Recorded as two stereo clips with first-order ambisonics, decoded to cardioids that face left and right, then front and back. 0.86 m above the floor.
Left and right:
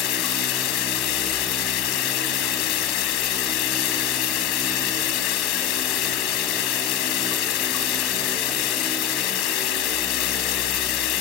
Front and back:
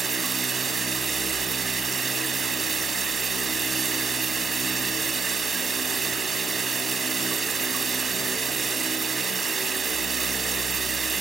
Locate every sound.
0.0 s running water: 110° left